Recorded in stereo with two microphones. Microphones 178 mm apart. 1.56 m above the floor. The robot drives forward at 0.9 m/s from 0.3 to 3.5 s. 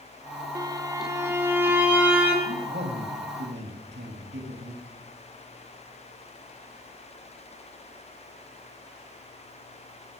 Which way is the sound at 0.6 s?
20° right (ahead or behind).